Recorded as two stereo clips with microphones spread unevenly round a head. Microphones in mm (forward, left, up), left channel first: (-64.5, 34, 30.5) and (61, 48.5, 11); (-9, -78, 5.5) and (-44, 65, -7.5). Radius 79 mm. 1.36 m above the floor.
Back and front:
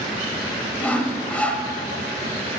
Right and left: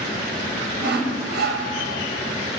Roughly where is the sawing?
Left.